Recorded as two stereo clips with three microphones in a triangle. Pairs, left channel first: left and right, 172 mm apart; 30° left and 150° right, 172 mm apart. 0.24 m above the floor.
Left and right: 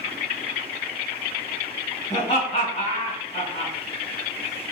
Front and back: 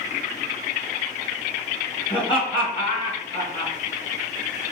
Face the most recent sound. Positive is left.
turn(degrees=65)